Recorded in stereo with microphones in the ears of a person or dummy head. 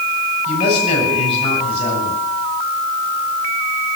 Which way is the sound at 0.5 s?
30° left (ahead or behind).